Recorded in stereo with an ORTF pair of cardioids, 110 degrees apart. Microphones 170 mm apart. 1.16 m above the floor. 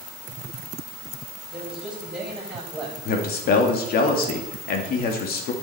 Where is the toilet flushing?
No toilet flushing in this recording.